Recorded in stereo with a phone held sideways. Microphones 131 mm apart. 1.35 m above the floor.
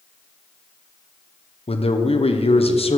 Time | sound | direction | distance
1.7 | a man speaking | 50° left (ahead or behind) | 0.9 m